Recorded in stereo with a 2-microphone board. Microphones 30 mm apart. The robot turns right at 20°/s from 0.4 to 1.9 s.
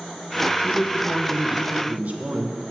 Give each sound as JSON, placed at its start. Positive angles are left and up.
{"t": 0.6, "sound": "a man speaking", "side_deg": -35, "distance_m": 0.9}